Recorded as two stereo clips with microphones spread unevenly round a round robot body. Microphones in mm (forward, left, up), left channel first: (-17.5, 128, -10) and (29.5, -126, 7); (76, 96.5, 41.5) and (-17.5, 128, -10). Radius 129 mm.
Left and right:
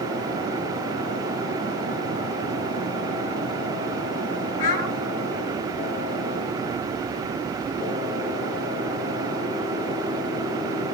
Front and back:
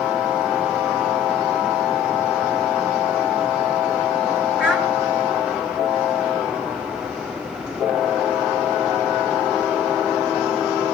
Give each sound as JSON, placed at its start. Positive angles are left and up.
{"t": 4.6, "sound": "a child speaking", "azimuth_deg": 90, "distance_m": 3.0}